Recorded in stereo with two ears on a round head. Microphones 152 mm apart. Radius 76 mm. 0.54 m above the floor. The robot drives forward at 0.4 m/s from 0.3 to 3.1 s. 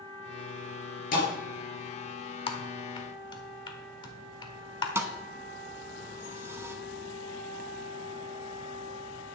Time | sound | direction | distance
1.1 | a thud | 55° left (ahead or behind) | 4.5 m
2.5 | typing on a keyboard | 35° left (ahead or behind) | 1.2 m
5.0 | a thud | 15° right (ahead or behind) | 0.9 m